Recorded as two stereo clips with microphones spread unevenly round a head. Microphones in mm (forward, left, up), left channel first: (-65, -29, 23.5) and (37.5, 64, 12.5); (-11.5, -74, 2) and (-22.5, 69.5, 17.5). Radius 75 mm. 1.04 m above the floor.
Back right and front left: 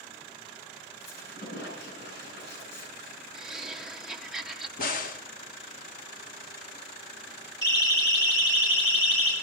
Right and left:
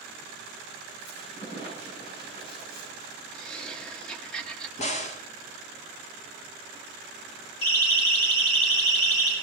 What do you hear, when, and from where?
1.0 s a squeak: 135° right, 8.5 m
3.3 s laughter: 25° right, 0.6 m
4.8 s a crack: 115° right, 1.3 m
7.6 s a siren: 70° right, 6 m; by 9.3 s 85° right, 7 m